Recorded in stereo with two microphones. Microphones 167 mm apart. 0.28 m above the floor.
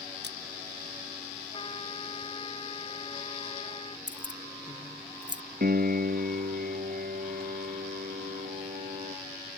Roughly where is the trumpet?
Left.